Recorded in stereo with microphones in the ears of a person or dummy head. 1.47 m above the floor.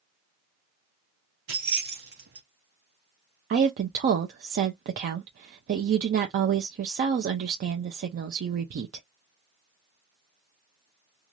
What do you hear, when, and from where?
1.5 s keys jangling: 45° right (ahead or behind), 0.8 m
3.5 s a woman speaking: 50° right (ahead or behind), 0.5 m